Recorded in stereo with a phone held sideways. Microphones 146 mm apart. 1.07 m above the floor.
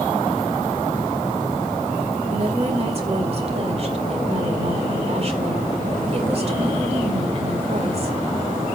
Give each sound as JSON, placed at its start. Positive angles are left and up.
{"t": 2.3, "sound": "a woman speaking", "side_deg": -45, "distance_m": 2.5}